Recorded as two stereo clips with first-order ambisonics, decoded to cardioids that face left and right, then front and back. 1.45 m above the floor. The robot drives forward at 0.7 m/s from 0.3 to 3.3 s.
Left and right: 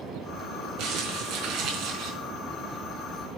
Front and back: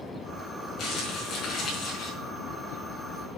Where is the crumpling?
55° right, 4.5 m; by 2.1 s 65° right, 4 m.